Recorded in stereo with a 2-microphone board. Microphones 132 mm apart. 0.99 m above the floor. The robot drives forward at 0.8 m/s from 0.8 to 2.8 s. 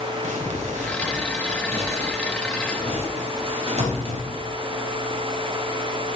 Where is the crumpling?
65° right (ahead or behind), 3.5 m; by 4.5 s 50° right (ahead or behind), 4.5 m.